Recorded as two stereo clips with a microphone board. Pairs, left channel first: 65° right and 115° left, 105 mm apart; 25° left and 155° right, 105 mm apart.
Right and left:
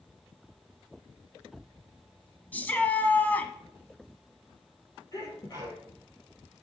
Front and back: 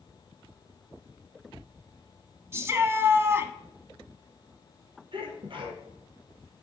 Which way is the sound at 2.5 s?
125° right.